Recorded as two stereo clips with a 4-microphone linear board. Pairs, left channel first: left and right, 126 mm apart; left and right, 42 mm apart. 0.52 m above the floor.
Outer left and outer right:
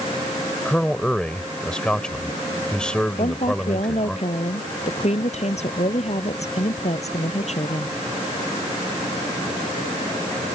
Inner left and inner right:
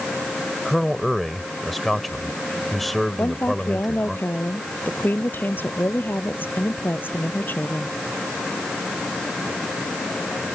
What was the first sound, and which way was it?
A man speaking, 5° left (ahead or behind).